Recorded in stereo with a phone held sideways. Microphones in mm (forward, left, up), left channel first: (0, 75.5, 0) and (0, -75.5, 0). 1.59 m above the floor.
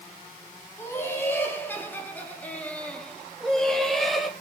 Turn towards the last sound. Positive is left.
turn(degrees=0)  # may be behind; listen again after turning